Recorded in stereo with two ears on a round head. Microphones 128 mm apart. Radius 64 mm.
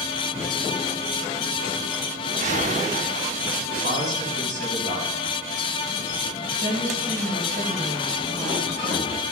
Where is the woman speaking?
55° right (ahead or behind), 4.5 m.